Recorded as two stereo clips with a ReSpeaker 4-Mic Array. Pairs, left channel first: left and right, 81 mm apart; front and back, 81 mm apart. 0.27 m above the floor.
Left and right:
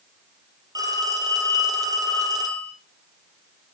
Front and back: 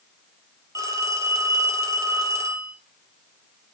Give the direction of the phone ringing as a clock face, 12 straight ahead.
4 o'clock.